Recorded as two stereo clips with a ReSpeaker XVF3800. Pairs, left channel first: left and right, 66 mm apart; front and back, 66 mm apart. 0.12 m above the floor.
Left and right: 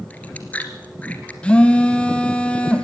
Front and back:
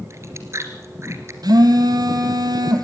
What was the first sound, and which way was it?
Chewing, 155° left.